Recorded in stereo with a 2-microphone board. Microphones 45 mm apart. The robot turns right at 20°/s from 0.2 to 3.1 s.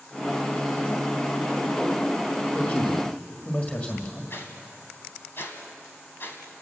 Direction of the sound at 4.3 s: 50° left (ahead or behind).